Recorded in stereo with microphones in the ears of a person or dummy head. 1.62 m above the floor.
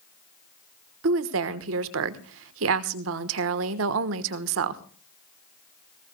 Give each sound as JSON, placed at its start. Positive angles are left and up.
{"t": 1.0, "sound": "a woman speaking", "side_deg": -70, "distance_m": 1.2}